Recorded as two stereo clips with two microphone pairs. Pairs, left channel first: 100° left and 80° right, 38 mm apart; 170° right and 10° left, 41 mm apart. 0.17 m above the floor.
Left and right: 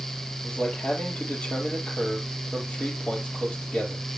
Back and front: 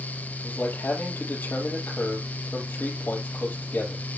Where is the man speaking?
155° left, 4.5 m.